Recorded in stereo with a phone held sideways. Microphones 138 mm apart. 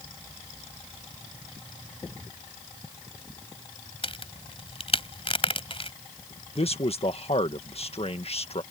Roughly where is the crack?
Left.